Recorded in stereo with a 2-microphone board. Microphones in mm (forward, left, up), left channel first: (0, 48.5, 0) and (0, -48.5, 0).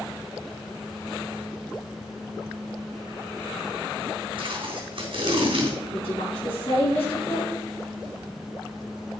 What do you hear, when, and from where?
4.4 s tape being pulled: 60° right (ahead or behind), 3.5 m
5.9 s a woman speaking: 70° left (ahead or behind), 4.5 m